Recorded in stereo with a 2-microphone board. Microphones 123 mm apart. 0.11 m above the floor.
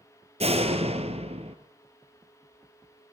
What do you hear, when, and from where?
0.4 s a door slam: 55° right (ahead or behind), 2 m